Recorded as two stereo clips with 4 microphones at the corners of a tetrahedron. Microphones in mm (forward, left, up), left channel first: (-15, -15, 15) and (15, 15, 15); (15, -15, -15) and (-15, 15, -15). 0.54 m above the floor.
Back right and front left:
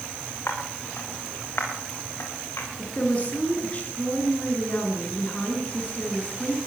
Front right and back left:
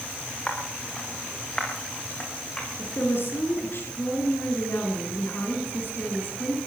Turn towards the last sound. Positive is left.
turn(degrees=-75)